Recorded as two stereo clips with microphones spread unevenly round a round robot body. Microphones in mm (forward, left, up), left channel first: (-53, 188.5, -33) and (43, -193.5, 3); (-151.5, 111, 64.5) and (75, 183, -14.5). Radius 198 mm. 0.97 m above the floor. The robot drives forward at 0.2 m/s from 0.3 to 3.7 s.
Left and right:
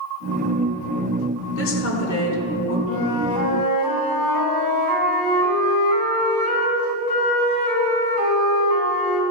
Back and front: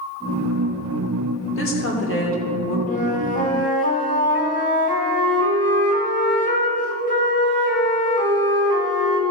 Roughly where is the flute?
Behind left.